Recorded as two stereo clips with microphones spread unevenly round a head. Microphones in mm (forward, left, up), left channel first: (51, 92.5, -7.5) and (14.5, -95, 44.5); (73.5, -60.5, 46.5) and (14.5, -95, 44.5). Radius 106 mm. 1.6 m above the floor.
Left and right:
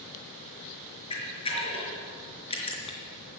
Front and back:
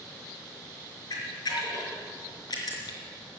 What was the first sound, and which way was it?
A camera shutter, 15° left.